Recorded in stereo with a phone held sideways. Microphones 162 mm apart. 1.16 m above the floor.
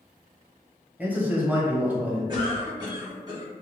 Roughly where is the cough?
Right.